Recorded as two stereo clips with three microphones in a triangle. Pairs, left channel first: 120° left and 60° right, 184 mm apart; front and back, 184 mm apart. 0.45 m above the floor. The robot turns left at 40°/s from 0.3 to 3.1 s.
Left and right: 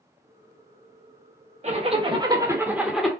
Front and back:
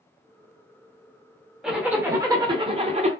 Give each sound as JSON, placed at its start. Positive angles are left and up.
{"t": 1.6, "sound": "a zipper", "azimuth_deg": -95, "distance_m": 0.6}